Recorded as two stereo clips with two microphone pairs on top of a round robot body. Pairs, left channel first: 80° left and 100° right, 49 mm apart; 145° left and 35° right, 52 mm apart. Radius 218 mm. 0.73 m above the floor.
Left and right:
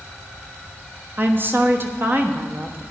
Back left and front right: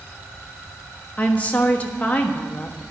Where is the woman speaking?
150° right, 1.3 m.